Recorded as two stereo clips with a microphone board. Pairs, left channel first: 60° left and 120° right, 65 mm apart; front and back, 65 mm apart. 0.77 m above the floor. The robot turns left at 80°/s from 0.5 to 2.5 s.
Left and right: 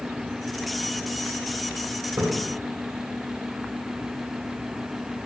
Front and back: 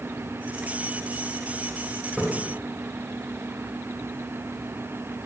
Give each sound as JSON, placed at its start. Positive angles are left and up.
{"t": 2.2, "sound": "a splash", "azimuth_deg": -100, "distance_m": 1.8}